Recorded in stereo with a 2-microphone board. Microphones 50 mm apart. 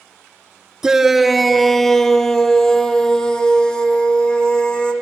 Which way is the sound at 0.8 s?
15° right (ahead or behind).